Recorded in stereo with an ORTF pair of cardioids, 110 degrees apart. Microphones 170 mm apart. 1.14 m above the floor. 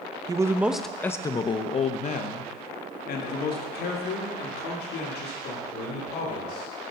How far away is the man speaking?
About 0.8 m.